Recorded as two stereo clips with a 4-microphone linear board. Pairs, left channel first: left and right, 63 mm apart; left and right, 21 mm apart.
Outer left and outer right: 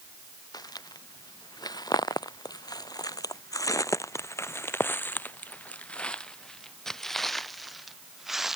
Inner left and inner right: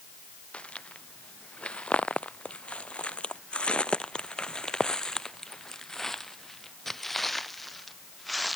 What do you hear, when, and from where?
0.5 s footsteps: 75° left (ahead or behind); by 8.6 s 5° right (ahead or behind)